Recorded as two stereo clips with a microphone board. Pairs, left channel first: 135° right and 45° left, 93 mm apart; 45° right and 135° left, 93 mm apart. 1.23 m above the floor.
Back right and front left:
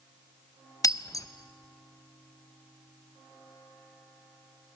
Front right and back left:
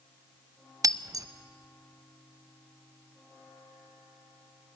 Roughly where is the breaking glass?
Behind.